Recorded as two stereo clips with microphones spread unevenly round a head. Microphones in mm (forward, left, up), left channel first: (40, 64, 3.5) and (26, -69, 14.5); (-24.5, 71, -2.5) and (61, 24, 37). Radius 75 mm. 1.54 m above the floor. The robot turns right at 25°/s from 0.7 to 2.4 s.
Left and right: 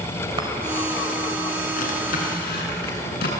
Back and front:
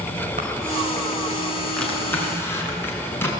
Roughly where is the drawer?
Ahead left.